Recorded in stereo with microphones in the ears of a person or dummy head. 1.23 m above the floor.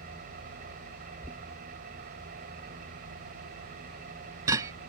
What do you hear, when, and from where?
0.0 s an engine running: 55° right (ahead or behind)
1.2 s knocking: 20° right (ahead or behind)